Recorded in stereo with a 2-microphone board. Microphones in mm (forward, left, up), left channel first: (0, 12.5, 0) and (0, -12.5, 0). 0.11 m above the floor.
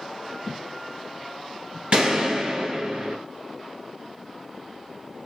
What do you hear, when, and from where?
0.5 s footsteps: 25° right (ahead or behind), 0.5 m; by 1.8 s 30° left (ahead or behind), 1.1 m
1.9 s a gunshot: 40° right (ahead or behind), 1.7 m